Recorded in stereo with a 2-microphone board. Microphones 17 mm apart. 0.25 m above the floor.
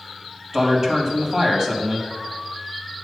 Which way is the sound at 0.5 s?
35° right (ahead or behind).